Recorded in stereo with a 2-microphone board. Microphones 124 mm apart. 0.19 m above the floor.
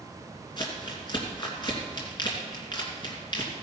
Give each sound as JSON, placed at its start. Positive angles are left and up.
{"t": 0.6, "sound": "crumpling", "side_deg": 35, "distance_m": 2.5}